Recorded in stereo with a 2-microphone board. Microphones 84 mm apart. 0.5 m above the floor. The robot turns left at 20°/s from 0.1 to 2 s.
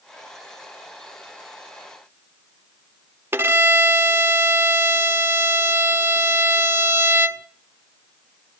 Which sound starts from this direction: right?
A violin, at 3.3 s.